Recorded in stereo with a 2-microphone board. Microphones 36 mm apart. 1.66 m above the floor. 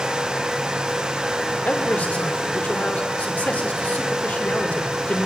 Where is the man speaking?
50° left (ahead or behind), 6.5 m.